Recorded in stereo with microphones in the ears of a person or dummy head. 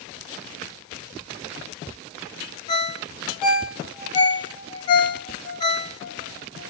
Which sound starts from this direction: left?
A ringtone, at 2.7 s.